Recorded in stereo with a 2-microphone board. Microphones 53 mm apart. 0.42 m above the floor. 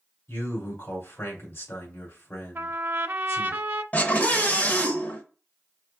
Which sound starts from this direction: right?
A trumpet, at 2.5 s.